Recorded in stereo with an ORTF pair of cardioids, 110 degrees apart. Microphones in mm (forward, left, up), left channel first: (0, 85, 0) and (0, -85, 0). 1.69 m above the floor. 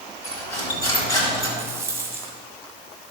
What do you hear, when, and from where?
0.2 s cutlery clinking: 20° left, 4 m
1.6 s a rattle: 15° right, 1.7 m